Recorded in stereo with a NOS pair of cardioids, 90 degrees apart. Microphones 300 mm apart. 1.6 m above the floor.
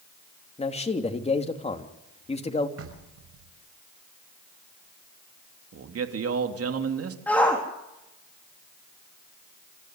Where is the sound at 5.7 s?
50° right, 3 m.